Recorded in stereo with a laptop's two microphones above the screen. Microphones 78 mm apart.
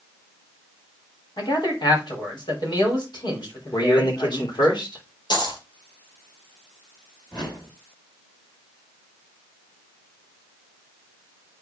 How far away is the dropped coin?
About 1.6 m.